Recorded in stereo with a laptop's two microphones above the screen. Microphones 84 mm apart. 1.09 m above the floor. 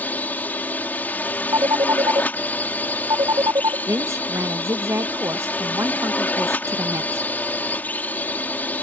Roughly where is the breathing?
I don't hear breathing.